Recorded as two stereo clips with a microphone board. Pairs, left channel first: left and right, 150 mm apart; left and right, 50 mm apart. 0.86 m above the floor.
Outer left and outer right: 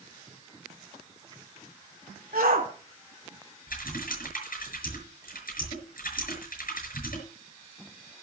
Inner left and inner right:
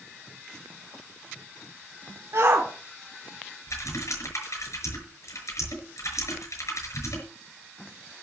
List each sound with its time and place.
2.3 s a shout: 70° right (ahead or behind), 2.0 m
3.7 s typing on a keyboard: 70° left (ahead or behind), 5.5 m